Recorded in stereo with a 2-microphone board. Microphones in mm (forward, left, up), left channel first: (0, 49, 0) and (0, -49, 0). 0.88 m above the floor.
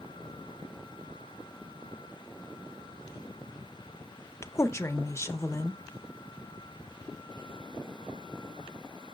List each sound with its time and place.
4.4 s a woman speaking: 30° left (ahead or behind), 0.6 m